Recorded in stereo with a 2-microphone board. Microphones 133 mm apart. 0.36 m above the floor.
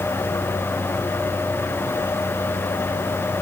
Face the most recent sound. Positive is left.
No sound to turn to.